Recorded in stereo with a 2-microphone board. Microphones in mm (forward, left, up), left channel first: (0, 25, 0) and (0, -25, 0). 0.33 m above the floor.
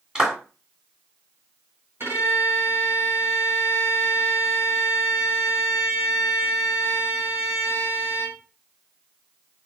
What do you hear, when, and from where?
0.1 s a clap: 20° right (ahead or behind), 1.8 m
2.0 s a violin: 60° right (ahead or behind), 3.5 m